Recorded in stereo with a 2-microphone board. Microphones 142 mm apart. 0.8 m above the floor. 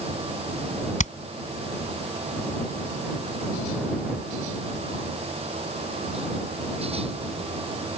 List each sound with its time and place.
1.0 s hammering: 55° left (ahead or behind)